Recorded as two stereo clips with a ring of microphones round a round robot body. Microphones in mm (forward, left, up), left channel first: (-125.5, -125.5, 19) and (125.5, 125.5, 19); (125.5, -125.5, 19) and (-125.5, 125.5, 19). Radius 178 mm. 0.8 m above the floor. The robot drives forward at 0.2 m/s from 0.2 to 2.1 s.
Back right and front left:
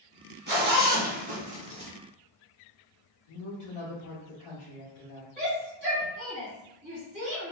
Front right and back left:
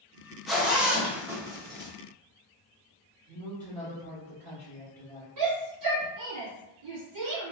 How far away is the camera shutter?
No camera shutter in this recording.